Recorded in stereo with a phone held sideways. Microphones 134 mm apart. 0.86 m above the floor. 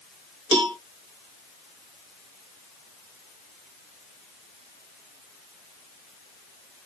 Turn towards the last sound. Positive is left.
turn(degrees=-35)  # may be behind; listen again after turning